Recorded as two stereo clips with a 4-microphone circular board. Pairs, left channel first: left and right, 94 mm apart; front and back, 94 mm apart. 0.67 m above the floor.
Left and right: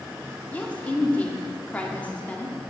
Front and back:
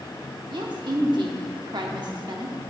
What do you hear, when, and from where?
0.5 s a woman speaking: 160° left, 1.0 m